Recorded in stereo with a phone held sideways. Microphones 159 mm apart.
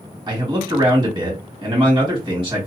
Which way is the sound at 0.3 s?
30° right (ahead or behind).